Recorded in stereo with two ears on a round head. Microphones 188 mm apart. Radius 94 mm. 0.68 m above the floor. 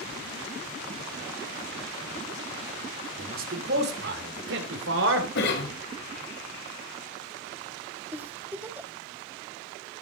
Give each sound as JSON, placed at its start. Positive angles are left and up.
{"t": 3.2, "sound": "a man speaking", "side_deg": -40, "distance_m": 2.0}
{"t": 5.3, "sound": "a cough", "side_deg": 60, "distance_m": 3.5}
{"t": 8.1, "sound": "a giggle", "side_deg": -10, "distance_m": 0.8}